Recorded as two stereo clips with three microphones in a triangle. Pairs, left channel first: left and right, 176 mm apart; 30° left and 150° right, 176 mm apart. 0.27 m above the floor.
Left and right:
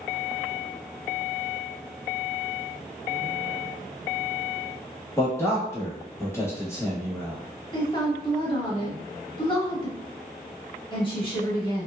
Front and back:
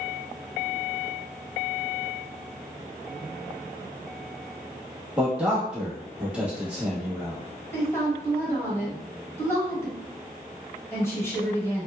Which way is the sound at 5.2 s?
135° left.